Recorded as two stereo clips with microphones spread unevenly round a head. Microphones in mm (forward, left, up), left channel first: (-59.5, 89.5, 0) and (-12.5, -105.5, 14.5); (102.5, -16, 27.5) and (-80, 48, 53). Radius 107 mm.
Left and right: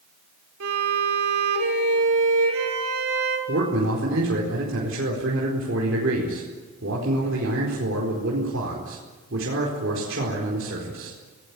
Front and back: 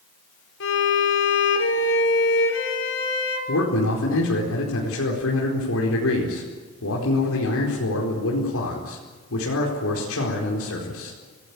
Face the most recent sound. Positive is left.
turn(degrees=-40)